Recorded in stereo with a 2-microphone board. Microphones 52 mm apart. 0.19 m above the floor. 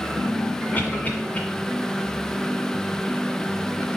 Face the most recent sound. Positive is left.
turn(degrees=30)  # may be behind; listen again after turning